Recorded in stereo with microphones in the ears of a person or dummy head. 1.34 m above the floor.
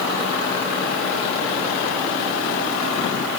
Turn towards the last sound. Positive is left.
No sound to turn to.